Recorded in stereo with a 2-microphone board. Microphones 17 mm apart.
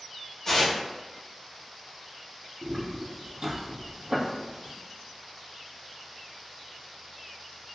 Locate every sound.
0.5 s tearing paper: 35° left (ahead or behind), 1.1 m
2.6 s footsteps: centre (ahead or behind), 0.8 m; by 4.7 s 65° right (ahead or behind), 0.8 m